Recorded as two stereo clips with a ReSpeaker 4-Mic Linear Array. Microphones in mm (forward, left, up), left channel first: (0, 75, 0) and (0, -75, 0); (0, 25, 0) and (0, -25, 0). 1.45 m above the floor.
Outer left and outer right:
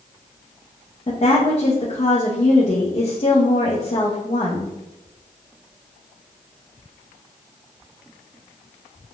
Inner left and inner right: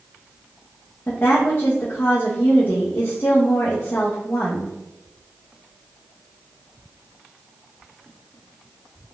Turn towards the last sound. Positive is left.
turn(degrees=45)  # may be behind; listen again after turning